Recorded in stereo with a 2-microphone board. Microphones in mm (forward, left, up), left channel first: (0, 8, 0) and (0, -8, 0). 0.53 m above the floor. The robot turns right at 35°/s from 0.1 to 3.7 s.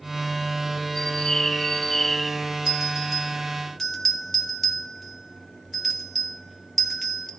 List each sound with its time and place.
0.9 s a bird: 115° left, 3 m; by 2.3 s 165° left, 3 m
2.7 s a bell: 25° right (ahead or behind), 1.9 m; by 7.3 s 10° left (ahead or behind), 1.9 m